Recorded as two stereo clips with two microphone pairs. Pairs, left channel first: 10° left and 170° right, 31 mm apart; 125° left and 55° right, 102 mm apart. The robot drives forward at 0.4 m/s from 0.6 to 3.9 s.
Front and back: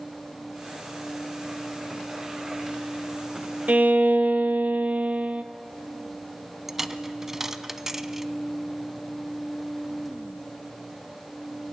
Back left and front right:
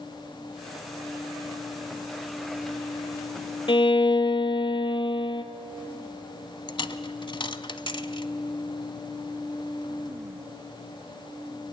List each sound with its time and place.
3.7 s a violin: 160° left, 0.7 m
6.7 s a dropped coin: 125° left, 0.7 m